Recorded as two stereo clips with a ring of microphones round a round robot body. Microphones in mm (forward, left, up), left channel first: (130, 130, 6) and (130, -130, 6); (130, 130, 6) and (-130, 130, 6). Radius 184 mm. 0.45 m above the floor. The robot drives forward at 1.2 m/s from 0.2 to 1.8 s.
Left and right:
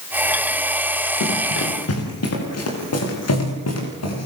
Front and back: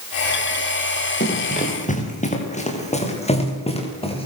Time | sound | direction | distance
1.2 | running footsteps | 55° left | 9 m